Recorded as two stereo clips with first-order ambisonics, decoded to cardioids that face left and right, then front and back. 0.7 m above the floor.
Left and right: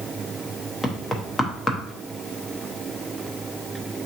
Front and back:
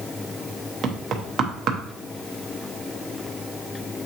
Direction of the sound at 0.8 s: 165° left.